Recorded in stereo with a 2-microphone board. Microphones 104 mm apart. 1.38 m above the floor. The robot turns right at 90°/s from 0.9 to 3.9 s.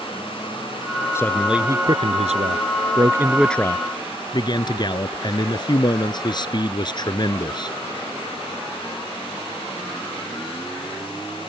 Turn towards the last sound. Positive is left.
turn(degrees=45)